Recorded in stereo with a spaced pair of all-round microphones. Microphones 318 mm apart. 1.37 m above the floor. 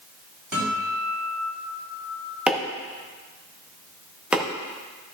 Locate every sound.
0.5 s a guitar: 80° right, 3.5 m
2.5 s chopping: 5° right (ahead or behind), 1.1 m